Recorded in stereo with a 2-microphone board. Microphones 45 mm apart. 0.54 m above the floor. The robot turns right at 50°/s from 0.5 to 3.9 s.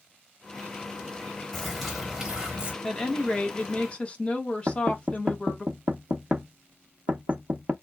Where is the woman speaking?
10° left (ahead or behind), 1.0 m; by 5.7 s 30° left (ahead or behind), 1.0 m.